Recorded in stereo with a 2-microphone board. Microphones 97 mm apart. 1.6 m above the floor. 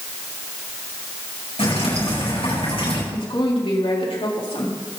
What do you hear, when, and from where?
1.6 s dripping: 80° left, 8 m
3.1 s a woman speaking: 70° left (ahead or behind), 4 m